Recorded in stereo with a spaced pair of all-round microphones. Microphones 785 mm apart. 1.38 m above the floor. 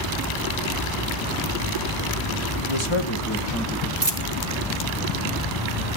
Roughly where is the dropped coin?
Right.